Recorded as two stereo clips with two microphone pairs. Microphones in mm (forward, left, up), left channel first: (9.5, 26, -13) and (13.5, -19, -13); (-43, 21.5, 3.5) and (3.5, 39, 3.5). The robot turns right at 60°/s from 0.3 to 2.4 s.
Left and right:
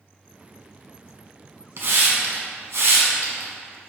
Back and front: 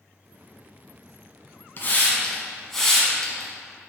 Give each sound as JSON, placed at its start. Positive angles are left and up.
{"t": 1.8, "sound": "a hiss", "azimuth_deg": -120, "distance_m": 0.9}